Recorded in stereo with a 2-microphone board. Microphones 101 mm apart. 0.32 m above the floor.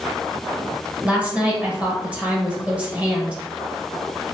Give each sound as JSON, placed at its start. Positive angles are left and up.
{"t": 1.0, "sound": "a woman speaking", "side_deg": -15, "distance_m": 1.2}